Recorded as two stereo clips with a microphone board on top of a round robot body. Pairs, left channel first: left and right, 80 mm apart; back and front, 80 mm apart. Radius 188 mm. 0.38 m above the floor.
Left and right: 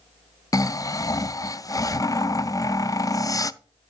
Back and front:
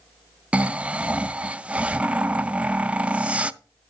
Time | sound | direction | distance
0.5 | snoring | 70° left | 0.6 m